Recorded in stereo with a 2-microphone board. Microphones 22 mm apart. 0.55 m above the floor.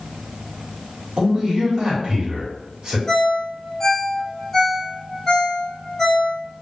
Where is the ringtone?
20° left (ahead or behind), 1.3 m.